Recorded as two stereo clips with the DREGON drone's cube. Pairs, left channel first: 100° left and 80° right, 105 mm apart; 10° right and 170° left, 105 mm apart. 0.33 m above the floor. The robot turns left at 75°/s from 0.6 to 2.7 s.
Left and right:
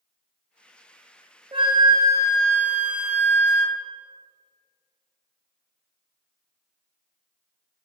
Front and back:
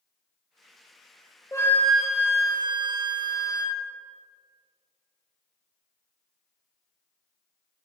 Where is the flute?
65° right, 0.8 m; by 3.8 s 155° right, 0.8 m.